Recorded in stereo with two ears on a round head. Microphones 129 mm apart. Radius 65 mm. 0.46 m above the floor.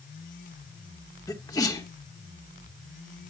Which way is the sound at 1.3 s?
25° left (ahead or behind).